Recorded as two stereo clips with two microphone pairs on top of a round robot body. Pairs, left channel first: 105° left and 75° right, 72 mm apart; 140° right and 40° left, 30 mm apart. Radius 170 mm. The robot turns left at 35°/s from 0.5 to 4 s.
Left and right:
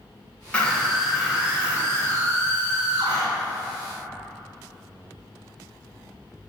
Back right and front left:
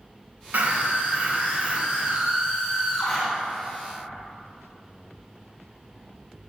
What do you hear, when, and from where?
0.5 s a scream: 30° left, 4.5 m; by 3.2 s 65° right, 4.5 m